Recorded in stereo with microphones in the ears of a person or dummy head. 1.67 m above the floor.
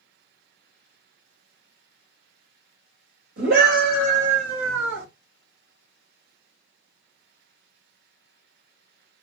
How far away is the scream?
About 2.5 m.